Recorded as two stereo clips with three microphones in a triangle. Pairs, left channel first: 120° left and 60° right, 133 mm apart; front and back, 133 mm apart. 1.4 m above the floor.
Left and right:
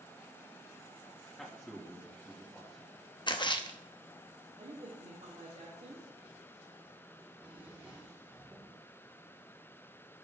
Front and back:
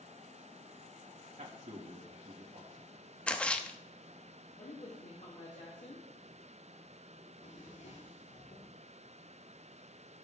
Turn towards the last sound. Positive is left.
turn(degrees=20)